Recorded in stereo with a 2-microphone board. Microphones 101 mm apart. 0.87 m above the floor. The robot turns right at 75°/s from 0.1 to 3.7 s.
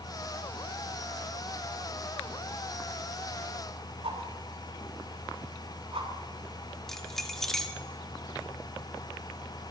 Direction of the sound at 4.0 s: 75° right (ahead or behind).